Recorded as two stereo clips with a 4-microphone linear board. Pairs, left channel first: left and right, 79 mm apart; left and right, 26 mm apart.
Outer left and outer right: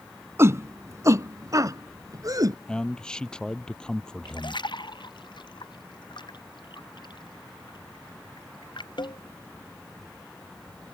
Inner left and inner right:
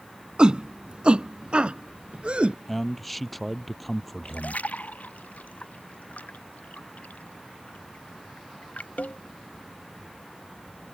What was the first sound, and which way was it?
A shout, 35° right (ahead or behind).